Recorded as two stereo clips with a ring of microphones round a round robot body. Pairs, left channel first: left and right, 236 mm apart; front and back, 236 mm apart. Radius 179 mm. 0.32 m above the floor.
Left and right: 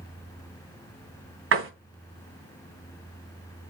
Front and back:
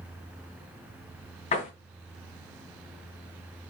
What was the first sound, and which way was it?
A door slam, 65° right.